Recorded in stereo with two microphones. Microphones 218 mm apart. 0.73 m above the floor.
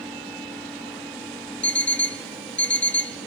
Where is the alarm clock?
55° left (ahead or behind), 0.9 m.